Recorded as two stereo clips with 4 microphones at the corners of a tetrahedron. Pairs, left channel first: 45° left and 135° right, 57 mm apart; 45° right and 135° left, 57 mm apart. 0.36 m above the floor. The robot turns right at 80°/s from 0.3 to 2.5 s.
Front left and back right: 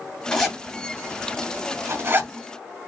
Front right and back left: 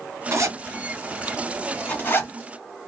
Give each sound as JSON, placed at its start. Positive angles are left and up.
{"t": 0.3, "sound": "a zipper", "azimuth_deg": 120, "distance_m": 2.5}